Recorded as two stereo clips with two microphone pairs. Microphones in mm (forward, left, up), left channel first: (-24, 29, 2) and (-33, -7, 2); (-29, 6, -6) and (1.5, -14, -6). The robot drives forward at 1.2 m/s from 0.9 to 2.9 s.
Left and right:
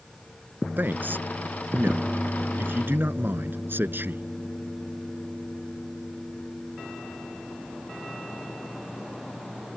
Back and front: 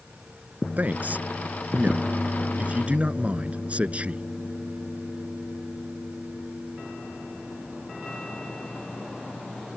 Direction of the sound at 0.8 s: 75° right.